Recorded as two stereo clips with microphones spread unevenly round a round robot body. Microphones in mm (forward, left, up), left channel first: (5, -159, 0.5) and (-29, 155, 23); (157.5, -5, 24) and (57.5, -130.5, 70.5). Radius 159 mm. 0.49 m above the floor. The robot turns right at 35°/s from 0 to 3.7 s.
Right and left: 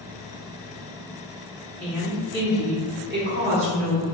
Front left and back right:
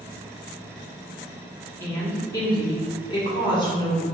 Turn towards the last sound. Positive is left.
turn(degrees=70)